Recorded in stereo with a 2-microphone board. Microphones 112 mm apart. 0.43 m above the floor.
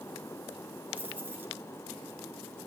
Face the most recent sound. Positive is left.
turn(degrees=-15)  # may be behind; listen again after turning